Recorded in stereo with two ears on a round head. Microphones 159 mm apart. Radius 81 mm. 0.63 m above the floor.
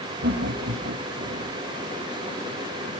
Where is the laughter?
60° right (ahead or behind), 3.5 m.